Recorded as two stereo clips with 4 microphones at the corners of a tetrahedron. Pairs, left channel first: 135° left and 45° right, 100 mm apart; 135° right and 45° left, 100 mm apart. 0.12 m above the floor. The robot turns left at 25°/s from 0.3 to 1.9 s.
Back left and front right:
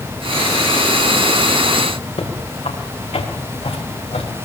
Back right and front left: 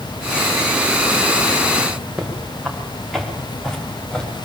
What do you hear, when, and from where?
2.2 s footsteps: 130° left, 6 m; by 4.5 s 145° left, 5.5 m